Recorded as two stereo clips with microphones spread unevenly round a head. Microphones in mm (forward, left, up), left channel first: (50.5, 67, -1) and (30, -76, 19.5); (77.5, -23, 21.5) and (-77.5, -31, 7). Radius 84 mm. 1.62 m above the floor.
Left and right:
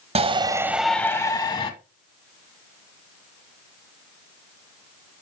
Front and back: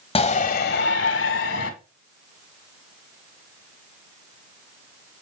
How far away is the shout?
About 1.3 m.